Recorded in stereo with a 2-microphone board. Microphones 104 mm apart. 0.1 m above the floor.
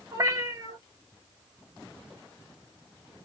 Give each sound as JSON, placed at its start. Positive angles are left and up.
{"t": 0.1, "sound": "a cat meowing", "side_deg": -35, "distance_m": 0.9}